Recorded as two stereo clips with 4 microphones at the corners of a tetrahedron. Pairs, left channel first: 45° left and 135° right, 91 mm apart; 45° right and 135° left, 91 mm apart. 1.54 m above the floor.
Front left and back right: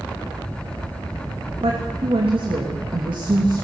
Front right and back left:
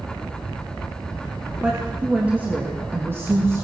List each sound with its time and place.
1.6 s a woman speaking: 145° right, 3 m; by 3.6 s 165° right, 3 m